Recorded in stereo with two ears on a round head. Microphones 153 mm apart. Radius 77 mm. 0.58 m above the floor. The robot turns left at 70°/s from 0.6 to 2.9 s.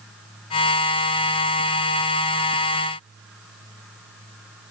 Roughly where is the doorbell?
I don't hear a doorbell.